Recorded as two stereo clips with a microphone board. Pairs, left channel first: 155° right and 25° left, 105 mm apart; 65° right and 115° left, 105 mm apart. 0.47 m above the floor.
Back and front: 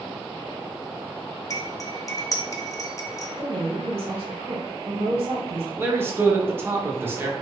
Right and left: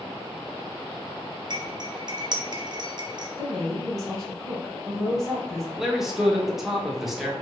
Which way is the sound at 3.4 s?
20° left.